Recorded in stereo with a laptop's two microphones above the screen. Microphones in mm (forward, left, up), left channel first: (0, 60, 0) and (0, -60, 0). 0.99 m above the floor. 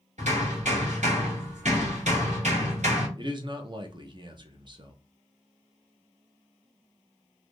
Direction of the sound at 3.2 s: 40° right (ahead or behind).